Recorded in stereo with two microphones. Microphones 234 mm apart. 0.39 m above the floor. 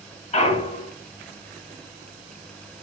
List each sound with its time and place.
0.3 s a clunk: 30° left (ahead or behind), 0.7 m